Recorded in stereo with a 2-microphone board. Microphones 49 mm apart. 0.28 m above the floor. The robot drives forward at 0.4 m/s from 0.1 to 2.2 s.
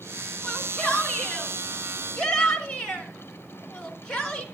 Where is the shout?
15° left (ahead or behind), 4 m.